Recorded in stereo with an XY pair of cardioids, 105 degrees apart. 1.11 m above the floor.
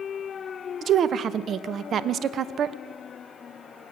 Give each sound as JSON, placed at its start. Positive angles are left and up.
{"t": 0.8, "sound": "a woman speaking", "azimuth_deg": -55, "distance_m": 0.8}